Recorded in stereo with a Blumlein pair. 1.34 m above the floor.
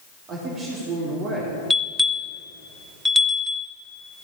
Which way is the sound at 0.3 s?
30° right.